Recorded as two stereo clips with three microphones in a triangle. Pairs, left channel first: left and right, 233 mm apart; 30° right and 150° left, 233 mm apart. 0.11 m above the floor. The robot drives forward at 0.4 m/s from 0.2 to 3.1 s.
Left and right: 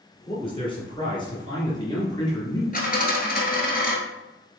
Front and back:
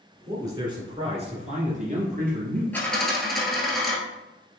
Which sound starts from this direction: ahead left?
A dropped coin, at 2.7 s.